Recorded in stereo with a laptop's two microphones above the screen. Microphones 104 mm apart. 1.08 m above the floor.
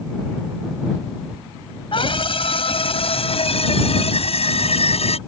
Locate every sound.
1.9 s a scream: 55° left (ahead or behind); by 5.2 s 75° left (ahead or behind)